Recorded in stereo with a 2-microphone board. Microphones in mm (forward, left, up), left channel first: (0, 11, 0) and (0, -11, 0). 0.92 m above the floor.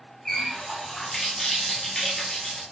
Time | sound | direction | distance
0.2 | a running tap | 15° left (ahead or behind) | 1.0 m